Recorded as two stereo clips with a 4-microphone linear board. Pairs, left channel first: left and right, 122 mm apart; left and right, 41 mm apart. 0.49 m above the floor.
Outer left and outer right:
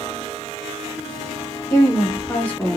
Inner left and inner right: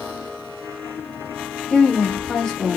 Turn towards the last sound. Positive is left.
turn(degrees=5)  # may be behind; listen again after turning